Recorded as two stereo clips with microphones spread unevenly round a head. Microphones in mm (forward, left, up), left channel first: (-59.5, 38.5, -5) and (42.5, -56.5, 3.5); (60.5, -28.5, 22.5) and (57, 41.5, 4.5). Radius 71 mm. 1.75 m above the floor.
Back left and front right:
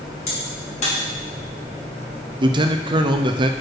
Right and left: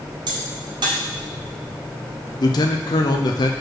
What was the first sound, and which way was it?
A crack, 90° left.